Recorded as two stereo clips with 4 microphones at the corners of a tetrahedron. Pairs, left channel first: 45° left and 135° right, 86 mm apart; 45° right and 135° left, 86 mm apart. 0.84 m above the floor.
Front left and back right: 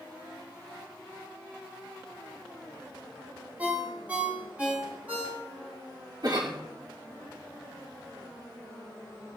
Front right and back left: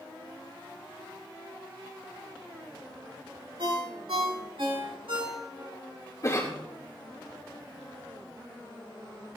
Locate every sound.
3.6 s a ringtone: 150° left, 3.5 m
6.2 s a cough: 100° right, 2 m